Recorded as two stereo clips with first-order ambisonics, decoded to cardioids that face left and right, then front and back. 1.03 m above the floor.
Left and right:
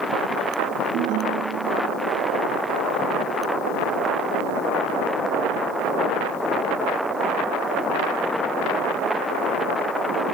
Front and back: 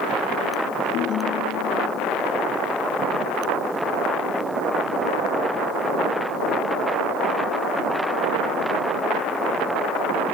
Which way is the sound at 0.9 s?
45° right.